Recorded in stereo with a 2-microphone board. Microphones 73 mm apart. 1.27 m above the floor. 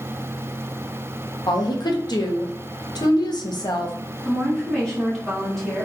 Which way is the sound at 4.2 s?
5° left (ahead or behind).